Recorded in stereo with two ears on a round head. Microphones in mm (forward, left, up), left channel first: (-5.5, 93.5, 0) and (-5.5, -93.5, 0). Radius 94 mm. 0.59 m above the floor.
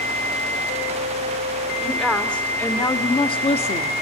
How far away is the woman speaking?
About 2 m.